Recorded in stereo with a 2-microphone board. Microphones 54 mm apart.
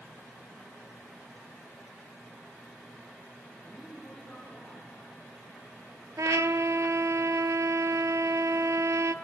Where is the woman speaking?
10° left (ahead or behind), 5.5 m; by 5.8 s centre (ahead or behind), 5 m.